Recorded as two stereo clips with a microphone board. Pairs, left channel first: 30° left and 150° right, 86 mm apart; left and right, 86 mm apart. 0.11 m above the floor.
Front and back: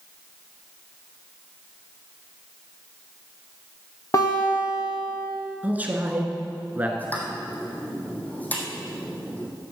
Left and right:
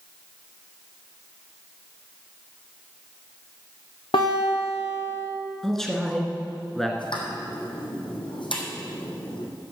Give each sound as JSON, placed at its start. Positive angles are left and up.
{"t": 4.1, "sound": "a guitar", "azimuth_deg": 80, "distance_m": 3.5}
{"t": 5.6, "sound": "a man speaking", "azimuth_deg": 170, "distance_m": 1.6}
{"t": 7.0, "sound": "a pop", "azimuth_deg": 100, "distance_m": 2.5}